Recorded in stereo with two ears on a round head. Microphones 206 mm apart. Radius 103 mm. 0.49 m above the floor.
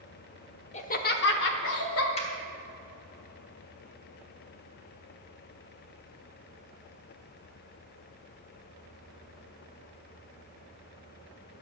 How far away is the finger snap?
About 2.5 m.